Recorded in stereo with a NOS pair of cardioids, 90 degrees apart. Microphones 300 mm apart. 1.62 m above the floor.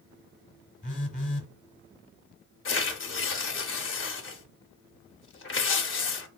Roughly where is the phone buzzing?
Ahead left.